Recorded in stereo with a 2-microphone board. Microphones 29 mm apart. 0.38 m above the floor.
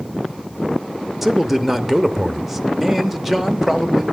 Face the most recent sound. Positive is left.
turn(degrees=-10)  # may be behind; listen again after turning